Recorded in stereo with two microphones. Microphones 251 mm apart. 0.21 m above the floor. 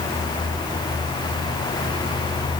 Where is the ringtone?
No ringtone in this recording.